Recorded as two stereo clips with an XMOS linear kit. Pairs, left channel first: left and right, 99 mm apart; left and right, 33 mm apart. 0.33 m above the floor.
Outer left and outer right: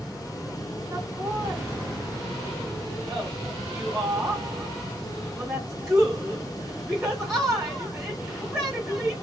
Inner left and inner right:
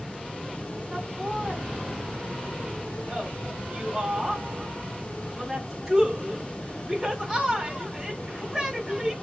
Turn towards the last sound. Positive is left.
turn(degrees=-5)  # may be behind; listen again after turning